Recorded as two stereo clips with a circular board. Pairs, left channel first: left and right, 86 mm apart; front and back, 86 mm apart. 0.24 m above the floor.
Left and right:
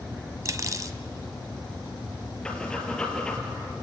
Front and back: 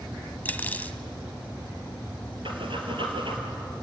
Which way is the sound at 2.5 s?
170° left.